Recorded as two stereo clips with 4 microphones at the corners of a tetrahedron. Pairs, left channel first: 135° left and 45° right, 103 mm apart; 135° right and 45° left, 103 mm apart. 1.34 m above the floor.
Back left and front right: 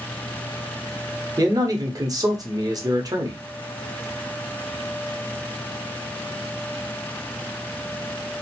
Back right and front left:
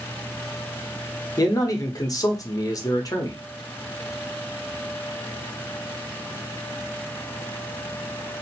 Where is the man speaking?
85° right, 0.8 m.